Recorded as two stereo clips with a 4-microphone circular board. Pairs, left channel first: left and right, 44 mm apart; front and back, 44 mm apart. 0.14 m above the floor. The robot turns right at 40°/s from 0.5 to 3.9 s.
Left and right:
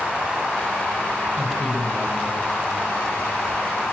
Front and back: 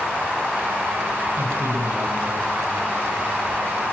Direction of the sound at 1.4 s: 175° right.